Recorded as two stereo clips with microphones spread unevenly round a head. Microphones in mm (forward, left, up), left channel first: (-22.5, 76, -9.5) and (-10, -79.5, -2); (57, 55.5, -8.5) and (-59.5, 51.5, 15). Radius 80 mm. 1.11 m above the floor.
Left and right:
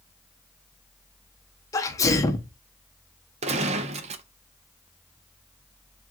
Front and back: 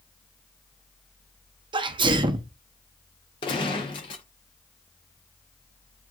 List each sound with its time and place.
1.7 s a sneeze: 145° left, 0.7 m
3.4 s a gunshot: 55° right, 0.6 m